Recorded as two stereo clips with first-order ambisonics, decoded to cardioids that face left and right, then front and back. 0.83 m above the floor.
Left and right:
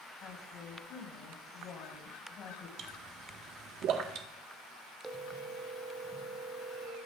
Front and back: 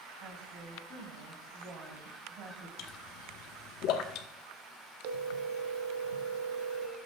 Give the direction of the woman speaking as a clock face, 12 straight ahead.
7 o'clock.